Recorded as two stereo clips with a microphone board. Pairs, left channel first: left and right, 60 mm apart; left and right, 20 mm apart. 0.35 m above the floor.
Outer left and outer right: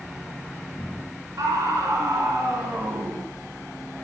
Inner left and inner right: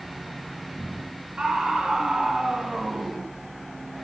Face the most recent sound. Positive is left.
turn(degrees=-75)  # may be behind; listen again after turning